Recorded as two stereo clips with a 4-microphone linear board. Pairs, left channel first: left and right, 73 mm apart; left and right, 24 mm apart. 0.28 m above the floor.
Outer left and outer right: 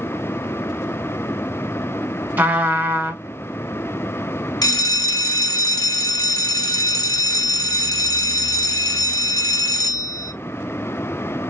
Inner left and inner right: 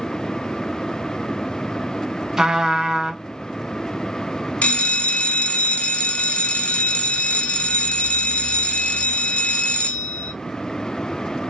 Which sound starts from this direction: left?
A bell, at 4.6 s.